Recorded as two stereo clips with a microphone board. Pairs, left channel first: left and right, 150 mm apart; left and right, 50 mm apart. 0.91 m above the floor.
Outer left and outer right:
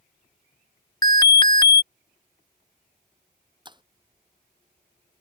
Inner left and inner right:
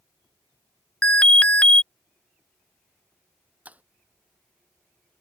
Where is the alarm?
25° left (ahead or behind).